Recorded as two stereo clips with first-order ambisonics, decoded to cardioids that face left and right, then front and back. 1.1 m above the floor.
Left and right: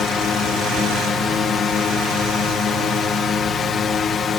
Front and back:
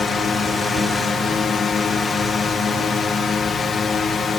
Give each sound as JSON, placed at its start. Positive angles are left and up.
{"t": 0.0, "sound": "a drone", "azimuth_deg": 45}